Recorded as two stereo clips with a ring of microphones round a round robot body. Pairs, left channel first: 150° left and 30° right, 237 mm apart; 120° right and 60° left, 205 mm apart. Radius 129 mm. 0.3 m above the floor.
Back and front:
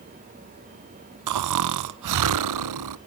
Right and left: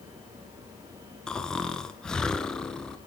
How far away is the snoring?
About 0.6 m.